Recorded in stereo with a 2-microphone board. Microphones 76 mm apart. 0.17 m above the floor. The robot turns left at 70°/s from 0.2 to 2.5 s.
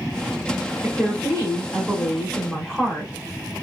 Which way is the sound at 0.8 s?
20° right (ahead or behind).